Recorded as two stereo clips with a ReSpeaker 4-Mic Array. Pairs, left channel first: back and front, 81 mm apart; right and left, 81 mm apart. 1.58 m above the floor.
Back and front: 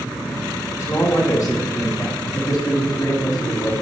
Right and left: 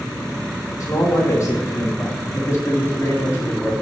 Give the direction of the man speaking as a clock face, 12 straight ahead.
4 o'clock.